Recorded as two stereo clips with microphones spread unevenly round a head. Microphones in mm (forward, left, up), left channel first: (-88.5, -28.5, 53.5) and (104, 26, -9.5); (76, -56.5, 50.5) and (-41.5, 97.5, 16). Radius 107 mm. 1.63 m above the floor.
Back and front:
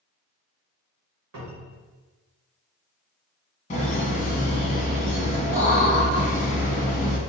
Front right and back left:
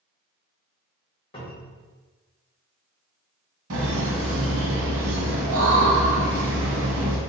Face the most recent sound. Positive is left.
turn(degrees=155)